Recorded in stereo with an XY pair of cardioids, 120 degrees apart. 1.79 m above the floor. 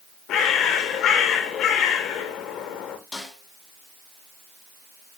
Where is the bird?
65° left, 2 m.